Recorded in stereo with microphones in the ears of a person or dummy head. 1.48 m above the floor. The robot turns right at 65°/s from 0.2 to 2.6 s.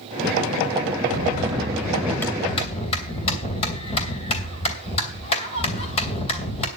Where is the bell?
60° right, 2.5 m; by 6.7 s 35° left, 2.5 m.